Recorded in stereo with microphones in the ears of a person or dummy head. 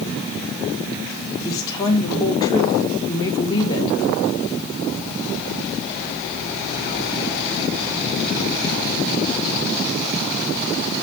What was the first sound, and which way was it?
A woman speaking, 20° left (ahead or behind).